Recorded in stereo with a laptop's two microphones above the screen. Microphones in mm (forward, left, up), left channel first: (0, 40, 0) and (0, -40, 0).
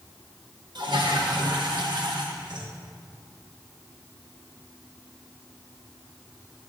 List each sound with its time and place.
0.8 s a toilet flushing: 70° right (ahead or behind), 1.1 m